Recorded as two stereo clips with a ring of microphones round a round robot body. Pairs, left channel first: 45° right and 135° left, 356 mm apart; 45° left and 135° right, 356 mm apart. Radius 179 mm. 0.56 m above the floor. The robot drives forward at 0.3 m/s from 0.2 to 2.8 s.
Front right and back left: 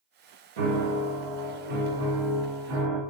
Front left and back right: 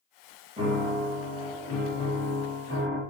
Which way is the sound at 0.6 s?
150° left.